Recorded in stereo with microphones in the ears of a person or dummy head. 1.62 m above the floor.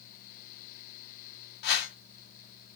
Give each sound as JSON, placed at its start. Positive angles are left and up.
{"t": 1.6, "sound": "a whoosh", "side_deg": 55, "distance_m": 1.6}